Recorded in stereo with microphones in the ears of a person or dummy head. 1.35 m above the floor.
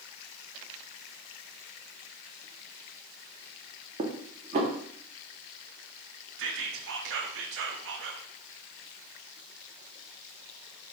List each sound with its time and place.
4.0 s dishes clattering: 35° right (ahead or behind), 0.7 m
6.4 s whispering: 65° right (ahead or behind), 0.6 m